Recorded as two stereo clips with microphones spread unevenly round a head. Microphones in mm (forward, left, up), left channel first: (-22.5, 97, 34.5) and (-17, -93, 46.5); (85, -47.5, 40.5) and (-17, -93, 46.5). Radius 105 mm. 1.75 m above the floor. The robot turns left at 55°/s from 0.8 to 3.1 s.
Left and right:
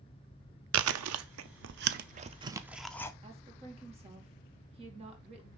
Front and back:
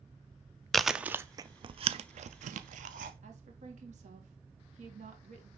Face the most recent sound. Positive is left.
turn(degrees=-150)